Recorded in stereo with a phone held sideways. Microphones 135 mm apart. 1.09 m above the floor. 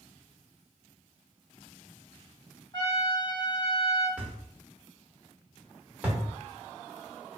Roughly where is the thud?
Centre.